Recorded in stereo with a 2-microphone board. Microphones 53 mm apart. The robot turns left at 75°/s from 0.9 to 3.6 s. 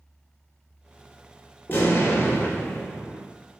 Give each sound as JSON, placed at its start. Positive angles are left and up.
{"t": 1.7, "sound": "an explosion", "azimuth_deg": 115, "distance_m": 2.0}